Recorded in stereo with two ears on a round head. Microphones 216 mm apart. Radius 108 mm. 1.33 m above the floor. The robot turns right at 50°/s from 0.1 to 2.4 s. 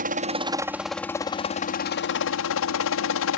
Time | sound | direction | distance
0.0 | a helicopter | 40° right | ?